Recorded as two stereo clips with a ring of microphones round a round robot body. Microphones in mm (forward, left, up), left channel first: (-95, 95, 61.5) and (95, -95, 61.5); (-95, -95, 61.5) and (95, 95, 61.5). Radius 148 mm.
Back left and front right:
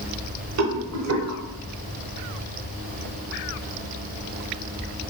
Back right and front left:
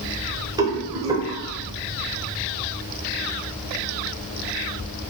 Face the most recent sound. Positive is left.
turn(degrees=-30)